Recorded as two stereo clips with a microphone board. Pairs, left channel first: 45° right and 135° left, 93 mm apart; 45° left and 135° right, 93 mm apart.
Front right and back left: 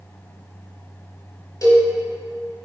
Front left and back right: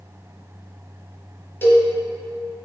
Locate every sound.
1.6 s a cowbell: 10° right, 1.2 m